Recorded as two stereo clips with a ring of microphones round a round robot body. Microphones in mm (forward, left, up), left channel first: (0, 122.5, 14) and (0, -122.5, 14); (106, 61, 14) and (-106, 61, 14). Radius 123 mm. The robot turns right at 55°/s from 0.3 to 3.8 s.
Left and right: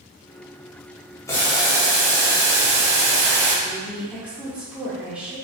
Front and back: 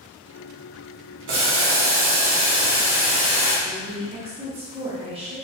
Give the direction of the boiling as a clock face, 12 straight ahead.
6 o'clock.